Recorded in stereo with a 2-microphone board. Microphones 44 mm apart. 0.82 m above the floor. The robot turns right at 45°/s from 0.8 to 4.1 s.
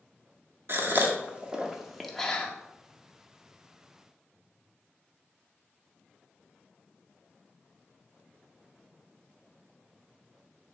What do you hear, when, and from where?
0.7 s a gasp: 50° right (ahead or behind), 0.6 m; by 2.5 s 20° left (ahead or behind), 0.6 m